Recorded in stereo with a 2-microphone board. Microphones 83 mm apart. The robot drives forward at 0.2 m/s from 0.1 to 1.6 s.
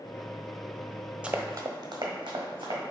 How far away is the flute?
No flute in this recording.